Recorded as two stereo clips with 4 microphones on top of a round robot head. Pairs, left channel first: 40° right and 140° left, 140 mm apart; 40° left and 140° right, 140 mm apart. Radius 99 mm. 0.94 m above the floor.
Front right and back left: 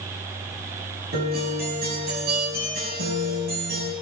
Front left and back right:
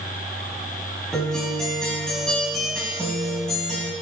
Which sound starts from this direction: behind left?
A guitar, at 1.1 s.